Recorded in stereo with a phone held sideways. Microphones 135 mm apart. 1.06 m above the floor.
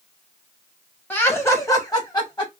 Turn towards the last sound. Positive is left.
turn(degrees=35)  # may be behind; listen again after turning